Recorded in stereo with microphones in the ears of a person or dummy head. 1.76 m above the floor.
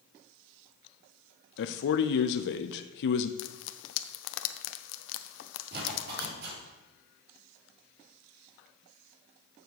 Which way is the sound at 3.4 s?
70° left (ahead or behind).